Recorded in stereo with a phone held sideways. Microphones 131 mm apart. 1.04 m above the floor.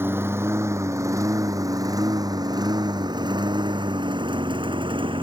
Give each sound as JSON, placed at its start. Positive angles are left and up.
{"t": 0.0, "sound": "a lawn mower", "side_deg": -15}